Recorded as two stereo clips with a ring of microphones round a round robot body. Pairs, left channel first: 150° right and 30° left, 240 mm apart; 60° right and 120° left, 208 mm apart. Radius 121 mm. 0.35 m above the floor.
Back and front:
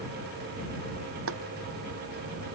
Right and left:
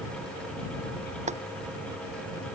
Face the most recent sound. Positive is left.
turn(degrees=65)